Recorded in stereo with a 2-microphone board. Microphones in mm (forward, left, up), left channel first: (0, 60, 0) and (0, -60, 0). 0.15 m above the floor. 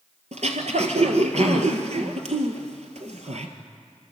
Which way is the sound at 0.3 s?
70° right (ahead or behind).